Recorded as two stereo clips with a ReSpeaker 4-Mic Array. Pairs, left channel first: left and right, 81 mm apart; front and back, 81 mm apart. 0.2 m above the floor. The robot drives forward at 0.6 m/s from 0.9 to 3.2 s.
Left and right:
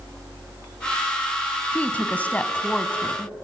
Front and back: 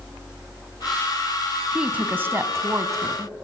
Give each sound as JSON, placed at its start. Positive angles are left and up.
{"t": 1.7, "sound": "a woman speaking", "azimuth_deg": 120, "distance_m": 1.0}